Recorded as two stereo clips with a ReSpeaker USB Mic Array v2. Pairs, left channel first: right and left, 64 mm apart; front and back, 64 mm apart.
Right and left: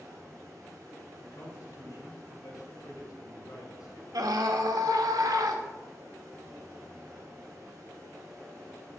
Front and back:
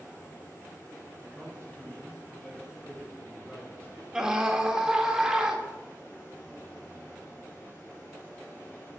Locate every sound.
0.0 s running water: 55° left, 4 m
1.2 s a man speaking: 70° right, 3 m
4.1 s a scream: 100° left, 1.5 m